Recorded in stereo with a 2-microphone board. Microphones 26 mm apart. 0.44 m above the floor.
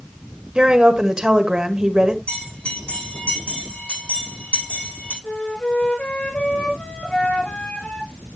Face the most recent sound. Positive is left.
turn(degrees=55)  # may be behind; listen again after turning